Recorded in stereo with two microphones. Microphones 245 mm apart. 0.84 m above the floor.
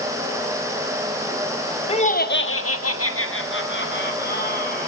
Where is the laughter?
25° left (ahead or behind), 1.2 m; by 4.9 s 35° left (ahead or behind), 3 m.